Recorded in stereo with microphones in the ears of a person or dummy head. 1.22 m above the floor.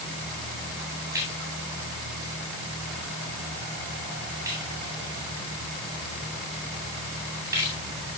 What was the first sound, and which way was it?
A splash, 15° right (ahead or behind).